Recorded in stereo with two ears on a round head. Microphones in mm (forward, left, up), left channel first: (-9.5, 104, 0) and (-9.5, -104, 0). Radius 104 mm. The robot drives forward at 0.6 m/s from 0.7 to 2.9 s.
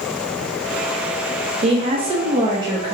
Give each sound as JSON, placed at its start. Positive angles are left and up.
{"t": 1.6, "sound": "a woman speaking", "side_deg": -30, "distance_m": 0.7}